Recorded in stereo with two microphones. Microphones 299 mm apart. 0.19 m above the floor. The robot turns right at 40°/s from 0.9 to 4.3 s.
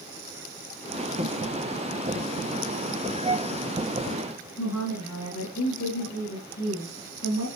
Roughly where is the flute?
Right.